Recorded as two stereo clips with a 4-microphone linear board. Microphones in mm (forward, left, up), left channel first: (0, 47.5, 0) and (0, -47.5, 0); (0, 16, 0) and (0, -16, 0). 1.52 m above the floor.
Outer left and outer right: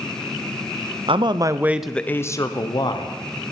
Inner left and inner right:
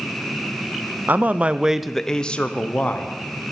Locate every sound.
1.1 s a man speaking: 55° right (ahead or behind), 0.6 m; by 3.1 s 50° left (ahead or behind), 1.1 m